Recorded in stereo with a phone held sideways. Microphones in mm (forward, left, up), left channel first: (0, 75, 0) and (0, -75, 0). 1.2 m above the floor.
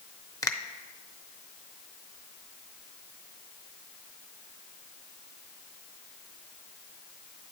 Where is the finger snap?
25° left (ahead or behind), 0.9 m.